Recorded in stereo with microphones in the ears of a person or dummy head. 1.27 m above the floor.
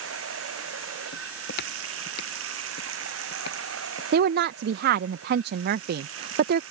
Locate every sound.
0.0 s running water: 85° right
1.1 s footsteps: 55° left (ahead or behind)
4.1 s a woman speaking: 60° right (ahead or behind)